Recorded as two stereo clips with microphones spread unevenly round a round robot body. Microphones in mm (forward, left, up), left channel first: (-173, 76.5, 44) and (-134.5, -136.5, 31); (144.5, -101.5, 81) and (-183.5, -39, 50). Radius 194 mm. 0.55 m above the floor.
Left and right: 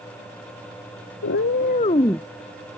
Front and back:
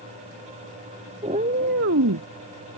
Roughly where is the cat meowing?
Left.